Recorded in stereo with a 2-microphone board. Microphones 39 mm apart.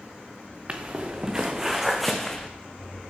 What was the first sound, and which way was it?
Footsteps, 35° right (ahead or behind).